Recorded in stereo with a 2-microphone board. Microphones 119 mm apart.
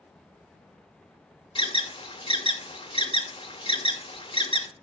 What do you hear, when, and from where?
1.6 s an alarm: 45° left (ahead or behind), 1.0 m